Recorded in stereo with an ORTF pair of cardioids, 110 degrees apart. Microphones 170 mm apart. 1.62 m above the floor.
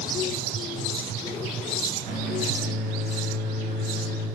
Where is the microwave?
70° right, 8.5 m.